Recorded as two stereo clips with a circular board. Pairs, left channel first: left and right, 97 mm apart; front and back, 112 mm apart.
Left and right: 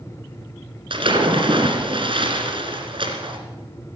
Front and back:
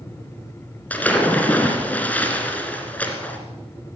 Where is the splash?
75° right, 1.9 m.